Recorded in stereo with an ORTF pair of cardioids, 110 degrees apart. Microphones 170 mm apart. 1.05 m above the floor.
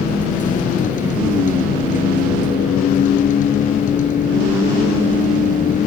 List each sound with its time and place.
0.0 s a vehicle: 50° left